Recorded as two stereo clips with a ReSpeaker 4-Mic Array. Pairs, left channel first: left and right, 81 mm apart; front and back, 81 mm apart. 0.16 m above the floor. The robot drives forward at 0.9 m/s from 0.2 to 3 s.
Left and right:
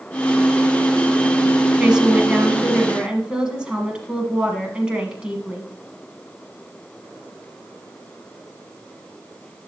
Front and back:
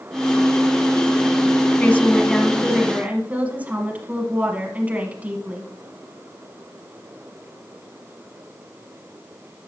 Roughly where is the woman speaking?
Ahead right.